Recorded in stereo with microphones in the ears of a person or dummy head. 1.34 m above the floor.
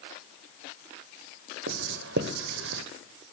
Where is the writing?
55° right (ahead or behind), 0.5 m.